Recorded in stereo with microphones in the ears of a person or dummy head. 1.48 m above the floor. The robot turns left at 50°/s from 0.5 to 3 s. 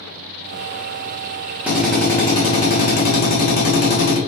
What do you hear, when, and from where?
1.7 s a drill: 175° right, 1.4 m; by 4.2 s 120° left, 1.4 m